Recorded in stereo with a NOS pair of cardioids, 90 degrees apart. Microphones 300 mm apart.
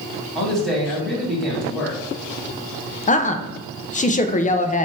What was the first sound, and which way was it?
A man speaking, straight ahead.